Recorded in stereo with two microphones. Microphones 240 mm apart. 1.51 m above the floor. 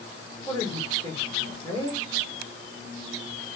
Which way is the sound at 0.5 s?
15° left (ahead or behind).